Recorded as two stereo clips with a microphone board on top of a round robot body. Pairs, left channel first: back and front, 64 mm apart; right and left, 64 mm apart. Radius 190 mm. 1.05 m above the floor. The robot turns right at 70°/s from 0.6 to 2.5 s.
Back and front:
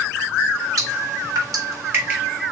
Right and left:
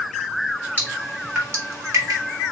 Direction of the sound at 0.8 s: 25° right.